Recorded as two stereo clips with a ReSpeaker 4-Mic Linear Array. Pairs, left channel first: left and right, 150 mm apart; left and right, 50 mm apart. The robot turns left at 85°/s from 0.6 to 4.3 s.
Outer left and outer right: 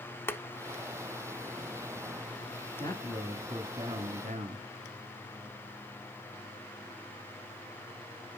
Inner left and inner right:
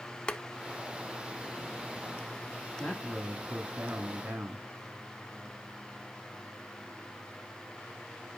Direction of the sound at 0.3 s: 15° left (ahead or behind).